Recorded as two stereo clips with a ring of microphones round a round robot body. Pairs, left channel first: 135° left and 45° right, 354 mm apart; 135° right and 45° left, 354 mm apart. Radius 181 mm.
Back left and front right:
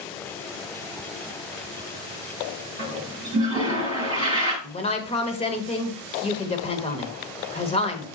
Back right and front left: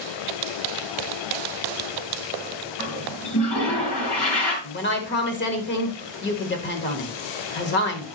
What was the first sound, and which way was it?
A toilet flushing, 150° right.